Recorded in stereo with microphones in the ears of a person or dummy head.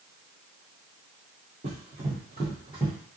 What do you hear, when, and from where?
1.6 s running footsteps: 30° right (ahead or behind), 1.7 m; by 2.9 s 10° right (ahead or behind), 1.5 m